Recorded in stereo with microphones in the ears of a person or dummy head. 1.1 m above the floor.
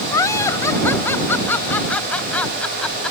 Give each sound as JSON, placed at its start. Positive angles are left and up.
{"t": 0.1, "sound": "laughter", "side_deg": 20}